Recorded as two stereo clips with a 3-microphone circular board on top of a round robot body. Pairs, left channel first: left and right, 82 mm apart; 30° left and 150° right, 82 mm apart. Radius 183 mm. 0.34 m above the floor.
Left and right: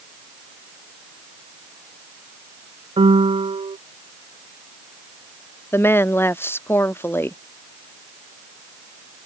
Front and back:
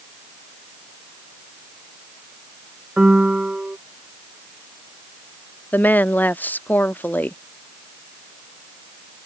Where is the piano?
70° right.